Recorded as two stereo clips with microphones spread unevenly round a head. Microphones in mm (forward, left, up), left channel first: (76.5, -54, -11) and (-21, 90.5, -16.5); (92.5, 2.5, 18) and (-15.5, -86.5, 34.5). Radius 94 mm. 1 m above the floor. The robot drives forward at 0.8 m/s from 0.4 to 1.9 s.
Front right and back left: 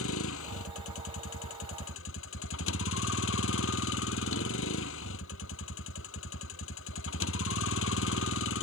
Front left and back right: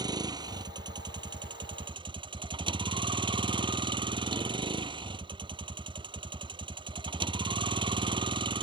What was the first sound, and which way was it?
A vehicle, 80° right.